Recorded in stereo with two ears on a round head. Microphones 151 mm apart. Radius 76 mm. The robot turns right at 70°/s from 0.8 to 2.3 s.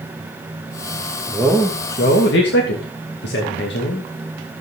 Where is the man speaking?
Straight ahead, 2.5 m; by 4.1 s 65° left, 2.5 m.